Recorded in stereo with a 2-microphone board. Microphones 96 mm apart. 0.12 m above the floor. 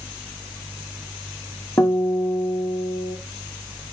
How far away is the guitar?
About 5.5 m.